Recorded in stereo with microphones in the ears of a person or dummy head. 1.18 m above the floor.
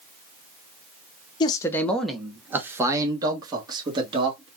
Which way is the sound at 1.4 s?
25° left (ahead or behind).